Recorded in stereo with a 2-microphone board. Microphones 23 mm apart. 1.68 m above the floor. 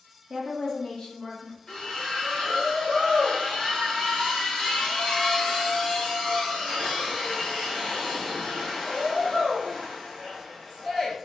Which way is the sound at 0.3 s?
25° right (ahead or behind).